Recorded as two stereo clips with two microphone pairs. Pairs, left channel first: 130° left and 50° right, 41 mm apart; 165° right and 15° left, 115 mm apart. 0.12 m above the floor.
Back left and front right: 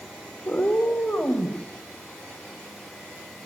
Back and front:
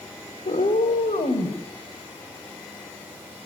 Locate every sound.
0.5 s a cat meowing: 165° right, 3 m; by 1.6 s straight behind, 3 m